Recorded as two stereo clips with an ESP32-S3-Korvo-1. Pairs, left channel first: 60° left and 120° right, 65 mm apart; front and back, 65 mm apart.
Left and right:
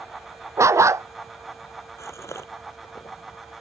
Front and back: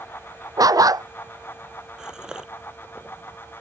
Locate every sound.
0.6 s a dog barking: 160° right
2.0 s a gasp: 100° left